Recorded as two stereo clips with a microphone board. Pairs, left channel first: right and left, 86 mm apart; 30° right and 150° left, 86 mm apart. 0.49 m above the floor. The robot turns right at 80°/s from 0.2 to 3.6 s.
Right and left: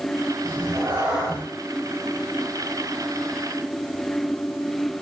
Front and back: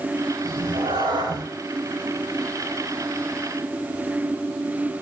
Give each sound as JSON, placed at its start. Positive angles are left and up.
{"t": 0.4, "sound": "a cat meowing", "azimuth_deg": 115, "distance_m": 9.0}